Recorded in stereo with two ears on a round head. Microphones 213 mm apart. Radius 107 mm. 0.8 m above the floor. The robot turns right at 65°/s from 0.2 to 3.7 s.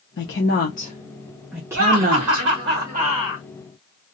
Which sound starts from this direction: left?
A woman speaking, at 0.2 s.